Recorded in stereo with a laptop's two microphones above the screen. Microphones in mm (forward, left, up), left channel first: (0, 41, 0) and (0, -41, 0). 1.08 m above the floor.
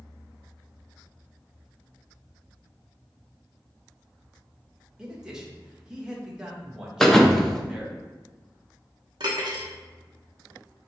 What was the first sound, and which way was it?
A man speaking, 10° right (ahead or behind).